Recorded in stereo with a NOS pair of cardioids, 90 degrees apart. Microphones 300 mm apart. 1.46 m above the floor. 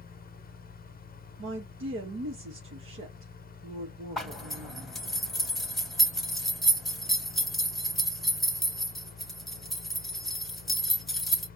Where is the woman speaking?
40° right, 1.6 m.